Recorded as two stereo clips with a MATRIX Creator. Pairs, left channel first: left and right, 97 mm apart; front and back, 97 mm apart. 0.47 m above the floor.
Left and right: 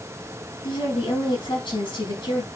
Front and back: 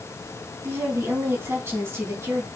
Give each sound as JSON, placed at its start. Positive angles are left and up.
{"t": 0.6, "sound": "a woman speaking", "azimuth_deg": 115, "distance_m": 4.5}